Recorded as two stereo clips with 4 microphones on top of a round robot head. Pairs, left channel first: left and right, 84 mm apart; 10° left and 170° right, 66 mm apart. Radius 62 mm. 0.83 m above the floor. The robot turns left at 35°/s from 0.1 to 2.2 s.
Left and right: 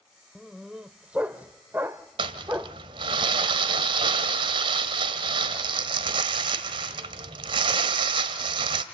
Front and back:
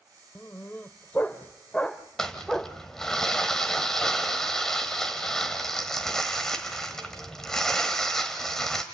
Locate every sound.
0.3 s a dog barking: 5° right, 0.5 m; by 2.8 s 70° right, 0.5 m
2.2 s crumpling: 75° right, 1.1 m